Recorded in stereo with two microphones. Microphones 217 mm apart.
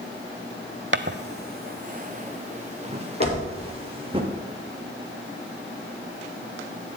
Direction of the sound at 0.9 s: 60° right (ahead or behind).